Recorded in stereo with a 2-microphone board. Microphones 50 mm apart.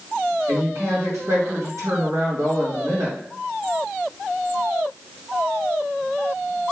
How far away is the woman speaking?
About 2.5 m.